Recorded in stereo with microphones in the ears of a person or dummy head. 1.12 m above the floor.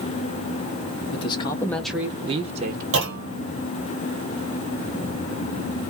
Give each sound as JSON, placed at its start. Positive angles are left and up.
{"t": 1.1, "sound": "a man speaking", "side_deg": 25, "distance_m": 1.0}
{"t": 2.9, "sound": "a clunk", "side_deg": -60, "distance_m": 1.2}